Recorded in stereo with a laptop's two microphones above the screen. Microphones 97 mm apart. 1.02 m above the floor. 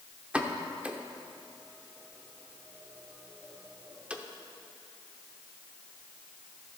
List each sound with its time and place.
0.3 s a pop: 15° right (ahead or behind), 0.8 m